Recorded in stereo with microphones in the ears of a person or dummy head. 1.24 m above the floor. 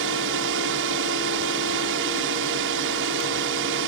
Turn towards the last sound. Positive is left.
turn(degrees=-55)  # may be behind; listen again after turning